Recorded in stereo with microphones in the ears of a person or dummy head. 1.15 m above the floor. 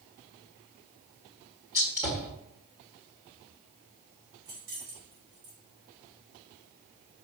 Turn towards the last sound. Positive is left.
turn(degrees=-60)  # may be behind; listen again after turning